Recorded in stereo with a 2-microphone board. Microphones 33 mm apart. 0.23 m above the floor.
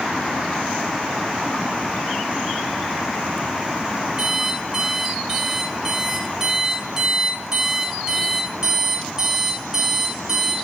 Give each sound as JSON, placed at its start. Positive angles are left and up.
{"t": 4.2, "sound": "an alarm clock", "side_deg": -15, "distance_m": 1.7}